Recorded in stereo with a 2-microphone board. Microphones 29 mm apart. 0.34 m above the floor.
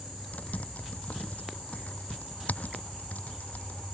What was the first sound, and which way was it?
Typing on a keyboard, 75° left (ahead or behind).